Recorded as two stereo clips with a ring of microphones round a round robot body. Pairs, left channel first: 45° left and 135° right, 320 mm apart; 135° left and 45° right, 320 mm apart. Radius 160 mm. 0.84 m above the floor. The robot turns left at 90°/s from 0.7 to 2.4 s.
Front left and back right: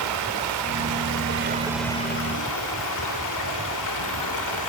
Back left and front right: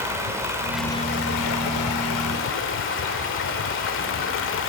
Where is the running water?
125° right, 2 m; by 4.7 s 80° left, 2 m.